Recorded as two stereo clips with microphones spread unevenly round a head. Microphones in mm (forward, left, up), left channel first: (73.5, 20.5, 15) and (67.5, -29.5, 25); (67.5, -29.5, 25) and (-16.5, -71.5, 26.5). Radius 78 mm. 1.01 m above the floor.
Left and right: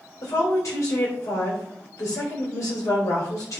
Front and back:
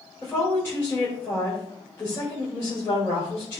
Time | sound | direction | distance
0.2 | a woman speaking | 100° left | 3.5 m